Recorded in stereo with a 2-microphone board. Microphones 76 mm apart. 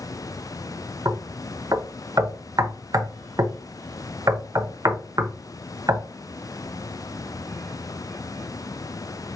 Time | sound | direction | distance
1.1 | knocking | 50° right (ahead or behind) | 0.7 m